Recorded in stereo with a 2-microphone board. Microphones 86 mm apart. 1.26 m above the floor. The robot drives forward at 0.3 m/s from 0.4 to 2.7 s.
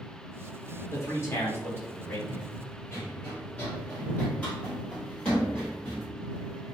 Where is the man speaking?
35° left (ahead or behind), 1.0 m; by 2.2 s 25° left (ahead or behind), 1.3 m.